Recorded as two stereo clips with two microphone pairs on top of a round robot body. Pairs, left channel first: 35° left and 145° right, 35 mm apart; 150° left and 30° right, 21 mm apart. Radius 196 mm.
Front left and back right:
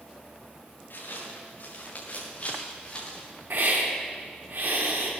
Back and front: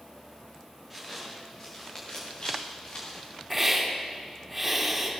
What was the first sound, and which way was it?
Footsteps, 60° left.